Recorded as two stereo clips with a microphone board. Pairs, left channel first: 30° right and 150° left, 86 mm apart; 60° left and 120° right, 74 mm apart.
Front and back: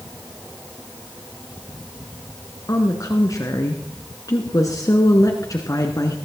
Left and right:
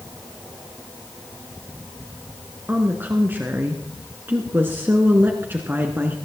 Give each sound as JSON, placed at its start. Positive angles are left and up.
{"t": 2.7, "sound": "a woman speaking", "azimuth_deg": -65, "distance_m": 1.8}